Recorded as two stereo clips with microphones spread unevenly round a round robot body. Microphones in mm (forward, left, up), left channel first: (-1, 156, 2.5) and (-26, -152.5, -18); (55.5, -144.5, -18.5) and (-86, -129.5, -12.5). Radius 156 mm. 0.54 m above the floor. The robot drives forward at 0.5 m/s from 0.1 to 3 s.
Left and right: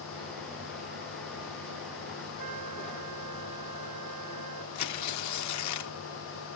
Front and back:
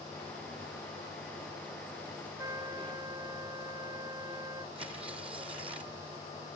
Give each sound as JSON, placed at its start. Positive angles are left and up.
{"t": 2.4, "sound": "a trumpet", "azimuth_deg": -120}
{"t": 4.8, "sound": "tearing paper", "azimuth_deg": 110}